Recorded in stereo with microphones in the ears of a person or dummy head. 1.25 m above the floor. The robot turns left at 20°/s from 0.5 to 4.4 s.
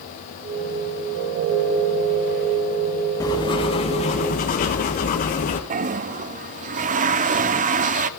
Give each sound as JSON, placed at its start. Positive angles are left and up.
{"t": 3.2, "sound": "writing", "side_deg": 15, "distance_m": 1.6}
{"t": 5.7, "sound": "a toilet flushing", "side_deg": -35, "distance_m": 0.6}